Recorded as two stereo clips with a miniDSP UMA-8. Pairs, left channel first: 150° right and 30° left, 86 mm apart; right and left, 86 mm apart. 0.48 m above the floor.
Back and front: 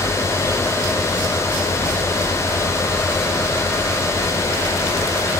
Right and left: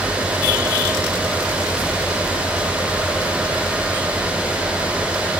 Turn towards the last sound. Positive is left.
No sound to turn to.